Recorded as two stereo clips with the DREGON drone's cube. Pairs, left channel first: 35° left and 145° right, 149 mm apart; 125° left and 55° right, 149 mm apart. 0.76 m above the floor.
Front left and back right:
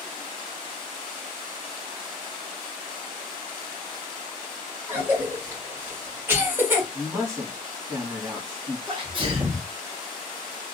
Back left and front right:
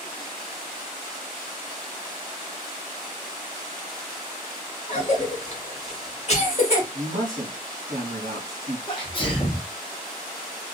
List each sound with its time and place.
4.9 s a cough: 145° left, 1.5 m
6.9 s a man speaking: 75° right, 1.6 m
8.9 s a sneeze: 170° left, 1.1 m